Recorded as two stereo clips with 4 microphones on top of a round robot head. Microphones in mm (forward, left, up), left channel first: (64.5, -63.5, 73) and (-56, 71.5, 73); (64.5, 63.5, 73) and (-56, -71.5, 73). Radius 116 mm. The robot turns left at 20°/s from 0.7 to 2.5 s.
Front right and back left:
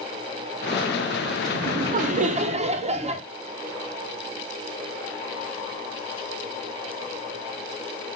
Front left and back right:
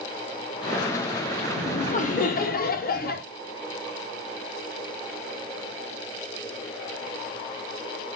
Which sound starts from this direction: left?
Laughter, at 1.5 s.